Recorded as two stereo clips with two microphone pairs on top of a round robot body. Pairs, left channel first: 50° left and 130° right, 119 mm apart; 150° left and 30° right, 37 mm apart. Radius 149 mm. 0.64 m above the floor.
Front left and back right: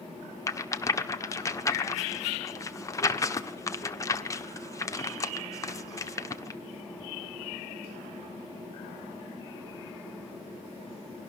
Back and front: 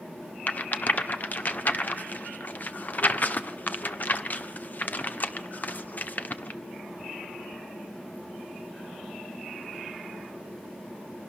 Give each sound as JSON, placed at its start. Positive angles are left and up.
{"t": 0.5, "sound": "a rattle", "azimuth_deg": 115, "distance_m": 1.5}